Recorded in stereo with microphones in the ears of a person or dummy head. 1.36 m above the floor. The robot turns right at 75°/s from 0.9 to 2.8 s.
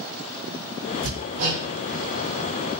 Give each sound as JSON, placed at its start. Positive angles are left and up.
{"t": 1.0, "sound": "hammering", "side_deg": -40, "distance_m": 1.1}